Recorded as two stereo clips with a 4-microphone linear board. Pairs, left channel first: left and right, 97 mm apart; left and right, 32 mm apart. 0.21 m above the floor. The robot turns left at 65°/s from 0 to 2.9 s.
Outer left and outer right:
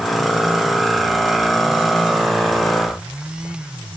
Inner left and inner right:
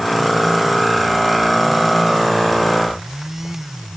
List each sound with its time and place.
Only background noise.